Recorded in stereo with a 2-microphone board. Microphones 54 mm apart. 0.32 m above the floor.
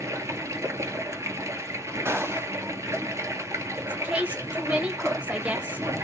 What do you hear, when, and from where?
0.0 s running water: 80° right, 0.8 m
2.0 s a gunshot: 60° right (ahead or behind), 0.9 m
3.8 s a woman speaking: 25° right (ahead or behind), 1.1 m